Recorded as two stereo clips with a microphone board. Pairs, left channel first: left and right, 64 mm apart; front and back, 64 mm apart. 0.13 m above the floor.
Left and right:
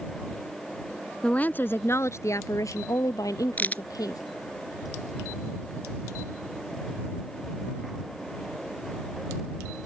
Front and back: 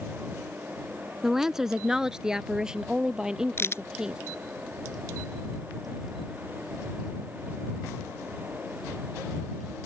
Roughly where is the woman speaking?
Left.